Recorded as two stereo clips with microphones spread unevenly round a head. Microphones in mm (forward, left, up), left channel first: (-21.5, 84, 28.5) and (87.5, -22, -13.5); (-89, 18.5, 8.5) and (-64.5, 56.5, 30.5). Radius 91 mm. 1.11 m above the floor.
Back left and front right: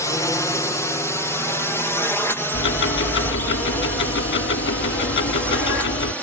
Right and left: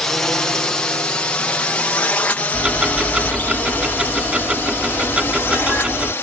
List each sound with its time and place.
0.0 s a drone: 140° right; by 6.2 s 135° right
2.5 s ticking: 125° left